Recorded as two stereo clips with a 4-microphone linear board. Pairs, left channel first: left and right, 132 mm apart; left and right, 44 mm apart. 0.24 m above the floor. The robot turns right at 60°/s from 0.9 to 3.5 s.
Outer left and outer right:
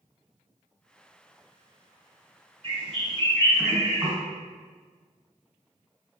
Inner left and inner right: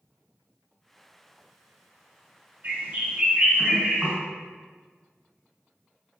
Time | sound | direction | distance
2.6 | a bird | 90° right | 1.7 m